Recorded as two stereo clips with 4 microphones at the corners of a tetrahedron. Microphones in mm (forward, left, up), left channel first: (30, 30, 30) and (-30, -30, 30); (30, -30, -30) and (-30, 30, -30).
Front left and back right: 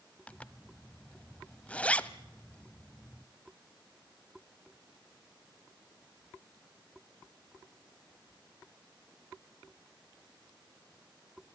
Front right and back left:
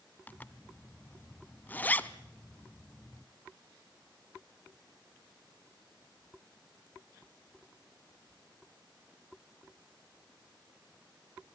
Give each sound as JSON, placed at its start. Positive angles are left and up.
{"t": 0.3, "sound": "a zipper", "azimuth_deg": -10, "distance_m": 0.8}